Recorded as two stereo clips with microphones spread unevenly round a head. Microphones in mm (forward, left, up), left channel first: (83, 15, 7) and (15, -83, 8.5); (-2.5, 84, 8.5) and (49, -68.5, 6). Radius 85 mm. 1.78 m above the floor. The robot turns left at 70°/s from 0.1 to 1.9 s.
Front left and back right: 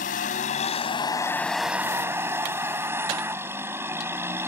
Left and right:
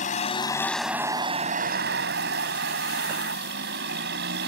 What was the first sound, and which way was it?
A vehicle, 70° left.